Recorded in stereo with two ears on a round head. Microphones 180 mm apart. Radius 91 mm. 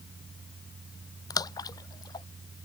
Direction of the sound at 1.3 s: 20° left (ahead or behind).